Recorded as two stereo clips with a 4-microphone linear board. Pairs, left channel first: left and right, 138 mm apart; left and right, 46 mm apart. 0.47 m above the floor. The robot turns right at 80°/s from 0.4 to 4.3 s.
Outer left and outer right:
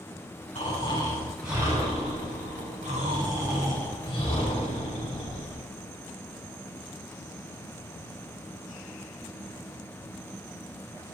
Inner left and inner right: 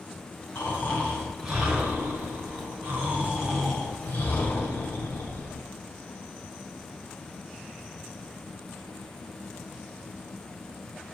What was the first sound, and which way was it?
Snoring, 110° left.